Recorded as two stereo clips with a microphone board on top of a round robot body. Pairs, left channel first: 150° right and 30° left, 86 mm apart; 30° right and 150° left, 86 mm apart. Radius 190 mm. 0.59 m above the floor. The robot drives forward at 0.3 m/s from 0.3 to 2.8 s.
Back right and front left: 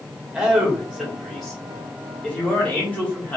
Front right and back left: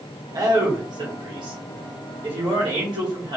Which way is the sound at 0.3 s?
105° left.